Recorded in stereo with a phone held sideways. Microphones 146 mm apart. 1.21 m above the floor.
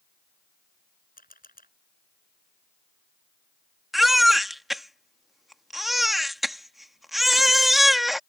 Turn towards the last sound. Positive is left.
turn(degrees=0)  # may be behind; listen again after turning